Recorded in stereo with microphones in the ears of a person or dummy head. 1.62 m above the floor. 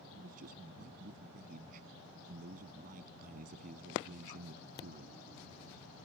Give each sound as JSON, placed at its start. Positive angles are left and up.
{"t": 0.2, "sound": "a man speaking", "side_deg": -45}